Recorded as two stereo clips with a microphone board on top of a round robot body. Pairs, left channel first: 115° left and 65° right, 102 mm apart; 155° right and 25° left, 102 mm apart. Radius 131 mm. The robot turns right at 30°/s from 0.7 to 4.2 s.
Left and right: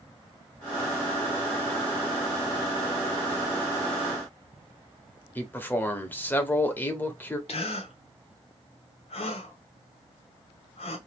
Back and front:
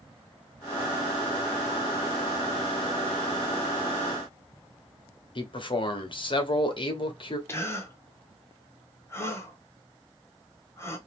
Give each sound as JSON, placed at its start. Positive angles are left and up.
{"t": 5.3, "sound": "a man speaking", "azimuth_deg": 180, "distance_m": 1.2}
{"t": 7.5, "sound": "a gasp", "azimuth_deg": 135, "distance_m": 0.9}